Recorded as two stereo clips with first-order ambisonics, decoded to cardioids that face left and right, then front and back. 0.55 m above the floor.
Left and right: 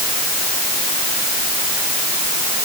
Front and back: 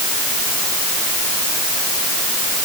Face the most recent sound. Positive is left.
No sound to turn to.